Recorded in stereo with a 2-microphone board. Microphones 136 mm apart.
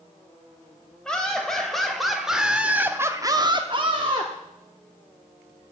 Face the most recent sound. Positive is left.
turn(degrees=-35)  # may be behind; listen again after turning